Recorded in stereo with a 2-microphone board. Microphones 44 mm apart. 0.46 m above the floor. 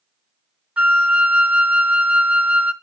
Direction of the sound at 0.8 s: 30° right (ahead or behind).